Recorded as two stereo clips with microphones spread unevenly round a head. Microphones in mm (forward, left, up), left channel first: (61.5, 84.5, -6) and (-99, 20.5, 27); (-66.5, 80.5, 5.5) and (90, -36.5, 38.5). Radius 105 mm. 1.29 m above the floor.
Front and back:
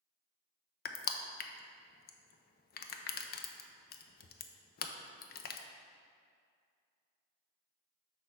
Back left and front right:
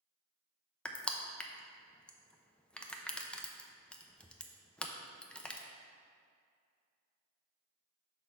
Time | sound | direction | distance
0.8 | crushing | 55° left | 0.6 m